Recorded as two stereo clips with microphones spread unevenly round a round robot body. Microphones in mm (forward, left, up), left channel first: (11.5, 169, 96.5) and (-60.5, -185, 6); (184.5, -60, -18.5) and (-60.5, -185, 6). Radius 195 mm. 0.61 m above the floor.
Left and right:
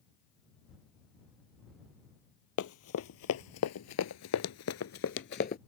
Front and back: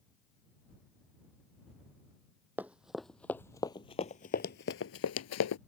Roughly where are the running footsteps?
Behind left.